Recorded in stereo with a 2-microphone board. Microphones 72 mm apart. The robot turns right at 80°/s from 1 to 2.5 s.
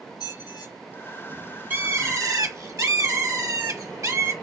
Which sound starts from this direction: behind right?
A bird, at 1.7 s.